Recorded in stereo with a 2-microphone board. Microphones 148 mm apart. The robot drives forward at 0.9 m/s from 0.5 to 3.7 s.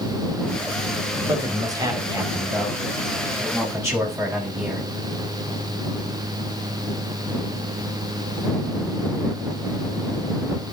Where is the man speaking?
25° right (ahead or behind), 4 m; by 4.9 s 15° right (ahead or behind), 6 m.